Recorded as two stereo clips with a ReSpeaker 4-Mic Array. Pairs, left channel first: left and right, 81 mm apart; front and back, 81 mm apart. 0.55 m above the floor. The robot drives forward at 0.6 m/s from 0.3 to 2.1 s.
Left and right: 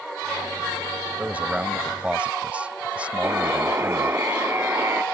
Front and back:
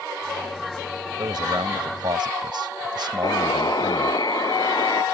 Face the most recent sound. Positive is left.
turn(degrees=-30)